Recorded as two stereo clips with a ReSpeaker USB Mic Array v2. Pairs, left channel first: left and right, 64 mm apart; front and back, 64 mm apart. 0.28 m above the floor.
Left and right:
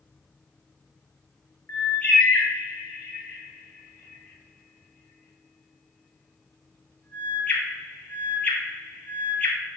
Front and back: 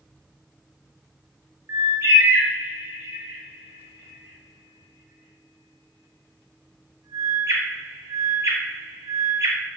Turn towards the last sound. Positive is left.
turn(degrees=150)